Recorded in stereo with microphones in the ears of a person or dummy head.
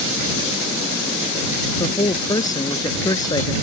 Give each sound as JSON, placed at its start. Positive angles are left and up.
{"t": 1.8, "sound": "a man speaking", "side_deg": 20}